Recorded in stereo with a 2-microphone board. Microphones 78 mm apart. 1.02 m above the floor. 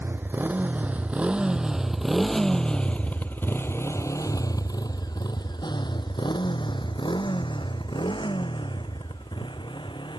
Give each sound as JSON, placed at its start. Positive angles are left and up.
{"t": 0.0, "sound": "a motorcycle", "side_deg": -25}